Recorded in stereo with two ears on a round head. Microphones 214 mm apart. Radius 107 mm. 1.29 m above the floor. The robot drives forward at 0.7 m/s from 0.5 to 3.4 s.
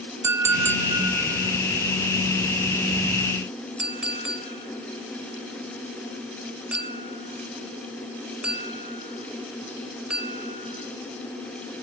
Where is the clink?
10° right (ahead or behind), 1.0 m; by 10.8 s 5° right (ahead or behind), 3 m.